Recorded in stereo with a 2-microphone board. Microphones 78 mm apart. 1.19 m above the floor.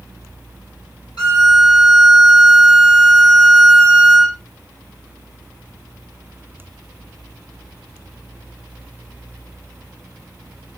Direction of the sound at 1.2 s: 70° left (ahead or behind).